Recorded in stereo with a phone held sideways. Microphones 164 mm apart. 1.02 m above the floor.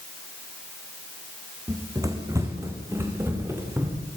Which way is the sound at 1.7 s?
20° right (ahead or behind).